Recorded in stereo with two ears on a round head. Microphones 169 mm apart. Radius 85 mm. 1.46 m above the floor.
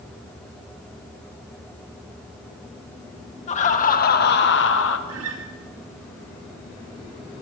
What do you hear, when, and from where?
3.5 s laughter: 40° left (ahead or behind), 1.7 m; by 5.0 s 70° left (ahead or behind), 1.1 m
5.1 s a guitar: 75° right (ahead or behind), 2.5 m